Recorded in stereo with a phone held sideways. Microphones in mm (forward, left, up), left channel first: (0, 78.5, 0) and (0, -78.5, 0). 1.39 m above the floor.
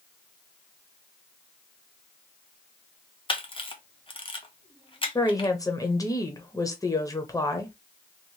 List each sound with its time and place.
3.3 s a camera shutter: 35° left (ahead or behind), 0.7 m
5.2 s a woman speaking: 20° left (ahead or behind), 0.7 m